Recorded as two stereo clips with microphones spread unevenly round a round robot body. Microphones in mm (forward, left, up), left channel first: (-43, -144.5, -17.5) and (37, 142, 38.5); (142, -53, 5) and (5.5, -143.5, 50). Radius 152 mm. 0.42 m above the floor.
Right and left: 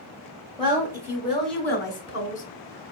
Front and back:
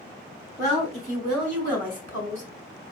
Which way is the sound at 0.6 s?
155° left.